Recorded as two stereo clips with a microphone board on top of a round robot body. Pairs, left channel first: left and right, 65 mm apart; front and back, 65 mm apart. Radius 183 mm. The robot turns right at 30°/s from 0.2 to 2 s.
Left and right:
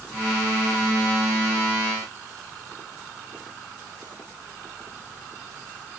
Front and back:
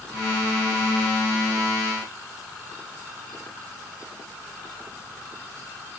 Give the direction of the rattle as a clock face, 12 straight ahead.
No rattle in this recording.